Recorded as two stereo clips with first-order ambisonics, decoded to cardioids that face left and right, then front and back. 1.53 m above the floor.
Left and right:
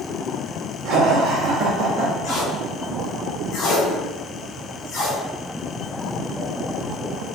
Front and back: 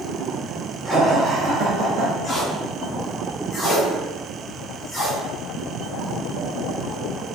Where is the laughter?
85° right, 0.9 m; by 2.1 s 150° right, 0.9 m.